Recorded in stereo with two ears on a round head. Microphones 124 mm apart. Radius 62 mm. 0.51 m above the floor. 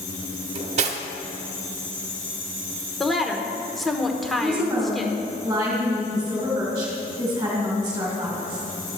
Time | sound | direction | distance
0.6 | cutlery clinking | 50° right (ahead or behind) | 0.9 m
3.0 | a woman speaking | centre (ahead or behind) | 1.0 m
4.4 | a woman speaking | 20° right (ahead or behind) | 2.5 m